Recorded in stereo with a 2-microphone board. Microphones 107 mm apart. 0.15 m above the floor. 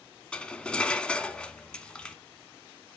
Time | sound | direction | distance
0.3 | cutlery clinking | 10° left (ahead or behind) | 0.7 m